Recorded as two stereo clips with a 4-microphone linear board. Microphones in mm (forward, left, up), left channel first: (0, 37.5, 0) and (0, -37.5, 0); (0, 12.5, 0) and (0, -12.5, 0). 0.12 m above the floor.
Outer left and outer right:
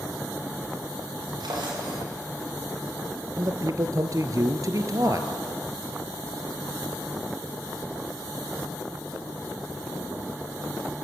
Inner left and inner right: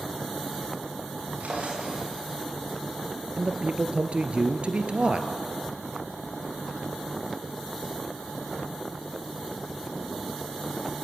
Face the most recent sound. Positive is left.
turn(degrees=-50)  # may be behind; listen again after turning